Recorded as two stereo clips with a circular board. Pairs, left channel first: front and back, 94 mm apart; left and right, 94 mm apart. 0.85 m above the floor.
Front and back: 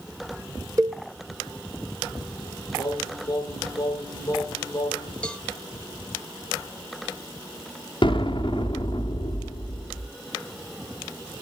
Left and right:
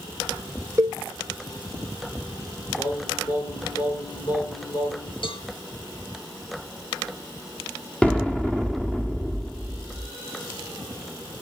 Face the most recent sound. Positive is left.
turn(degrees=15)